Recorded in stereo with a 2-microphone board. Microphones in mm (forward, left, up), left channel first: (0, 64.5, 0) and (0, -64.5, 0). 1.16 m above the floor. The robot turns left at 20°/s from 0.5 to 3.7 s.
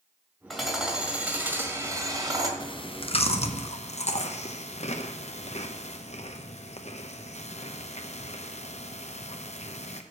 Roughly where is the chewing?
Left.